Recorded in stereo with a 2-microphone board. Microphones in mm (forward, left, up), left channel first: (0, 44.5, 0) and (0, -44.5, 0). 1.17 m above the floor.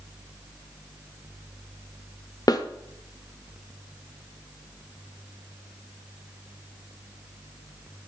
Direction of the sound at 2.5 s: 50° left (ahead or behind).